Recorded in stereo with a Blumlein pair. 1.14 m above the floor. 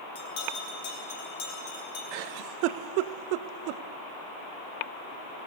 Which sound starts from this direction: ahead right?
A giggle, at 2.1 s.